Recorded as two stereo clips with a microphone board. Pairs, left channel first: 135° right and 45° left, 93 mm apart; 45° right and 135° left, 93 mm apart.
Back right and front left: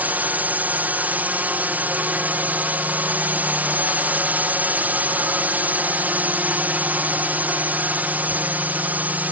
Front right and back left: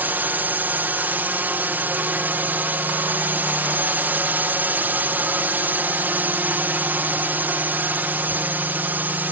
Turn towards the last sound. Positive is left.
turn(degrees=90)